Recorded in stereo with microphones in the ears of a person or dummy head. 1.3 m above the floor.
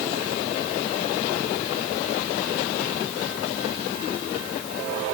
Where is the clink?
I don't hear a clink.